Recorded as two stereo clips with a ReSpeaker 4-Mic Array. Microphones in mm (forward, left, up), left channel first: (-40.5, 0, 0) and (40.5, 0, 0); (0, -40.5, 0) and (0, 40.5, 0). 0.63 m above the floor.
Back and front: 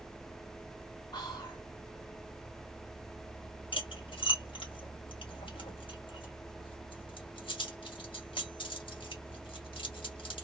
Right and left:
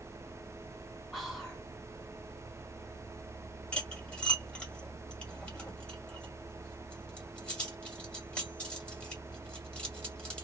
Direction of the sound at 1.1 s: 175° right.